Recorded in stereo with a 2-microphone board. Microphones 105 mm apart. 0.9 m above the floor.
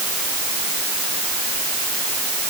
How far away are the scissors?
No scissors in this recording.